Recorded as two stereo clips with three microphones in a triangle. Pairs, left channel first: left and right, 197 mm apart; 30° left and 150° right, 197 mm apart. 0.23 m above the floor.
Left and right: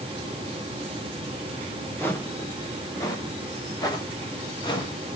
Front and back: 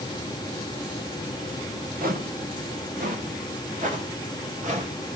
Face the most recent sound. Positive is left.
turn(degrees=160)